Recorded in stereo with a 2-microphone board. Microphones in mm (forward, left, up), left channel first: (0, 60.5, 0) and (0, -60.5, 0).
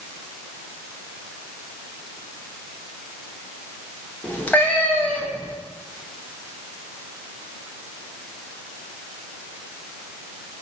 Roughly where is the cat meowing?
Centre.